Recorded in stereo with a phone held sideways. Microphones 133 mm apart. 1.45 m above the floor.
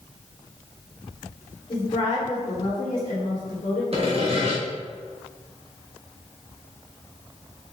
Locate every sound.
1.7 s a woman speaking: 40° left (ahead or behind), 1.3 m; by 3.8 s 75° left (ahead or behind), 1.4 m
3.9 s sawing: 50° right (ahead or behind), 1.2 m